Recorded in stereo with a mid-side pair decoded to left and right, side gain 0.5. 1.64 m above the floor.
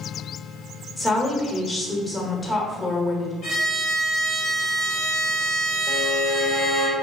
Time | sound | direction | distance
1.0 | a woman speaking | 20° left | 1.0 m
3.4 | a violin | 55° left | 1.8 m
5.9 | a violin | 45° left | 1.0 m